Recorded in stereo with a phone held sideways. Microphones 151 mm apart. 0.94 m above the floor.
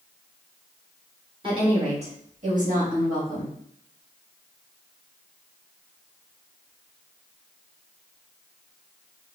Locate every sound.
1.4 s a woman speaking: 35° right (ahead or behind), 1.2 m; by 3.5 s 70° right (ahead or behind), 1.9 m